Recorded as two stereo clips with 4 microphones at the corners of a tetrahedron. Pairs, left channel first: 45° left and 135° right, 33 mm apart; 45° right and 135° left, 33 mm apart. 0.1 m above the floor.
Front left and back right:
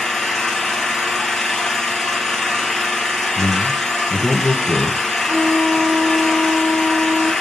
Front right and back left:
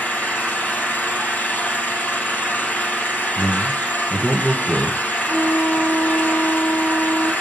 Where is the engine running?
35° right, 3 m.